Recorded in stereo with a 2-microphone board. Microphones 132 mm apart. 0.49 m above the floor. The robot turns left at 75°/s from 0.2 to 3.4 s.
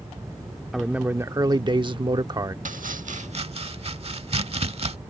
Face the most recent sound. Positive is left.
turn(degrees=-50)  # may be behind; listen again after turning